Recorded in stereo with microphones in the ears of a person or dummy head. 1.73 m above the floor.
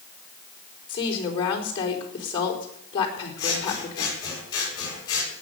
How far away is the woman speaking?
About 4.5 m.